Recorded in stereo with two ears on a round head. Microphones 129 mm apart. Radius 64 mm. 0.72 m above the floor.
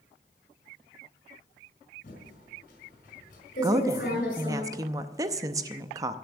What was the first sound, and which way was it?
Typing on a keyboard, 60° left (ahead or behind).